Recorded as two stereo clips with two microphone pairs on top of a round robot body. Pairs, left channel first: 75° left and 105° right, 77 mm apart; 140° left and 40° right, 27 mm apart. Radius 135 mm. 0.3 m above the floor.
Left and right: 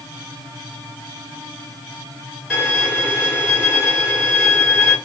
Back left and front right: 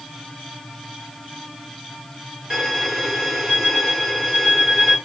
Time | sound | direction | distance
2.5 | a violin | 10° right | 1.7 m